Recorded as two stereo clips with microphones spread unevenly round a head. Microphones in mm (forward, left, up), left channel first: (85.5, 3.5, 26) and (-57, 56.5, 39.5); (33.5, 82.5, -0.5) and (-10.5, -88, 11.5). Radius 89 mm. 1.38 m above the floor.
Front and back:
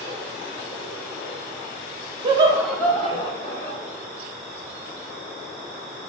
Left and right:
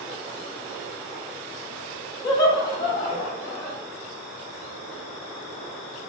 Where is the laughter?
125° left, 0.5 m; by 3.8 s 5° right, 0.9 m.